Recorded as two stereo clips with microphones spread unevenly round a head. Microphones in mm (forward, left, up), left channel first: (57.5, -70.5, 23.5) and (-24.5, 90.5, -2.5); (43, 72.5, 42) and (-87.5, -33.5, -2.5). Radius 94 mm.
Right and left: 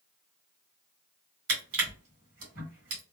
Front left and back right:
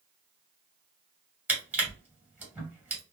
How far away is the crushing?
About 2.0 m.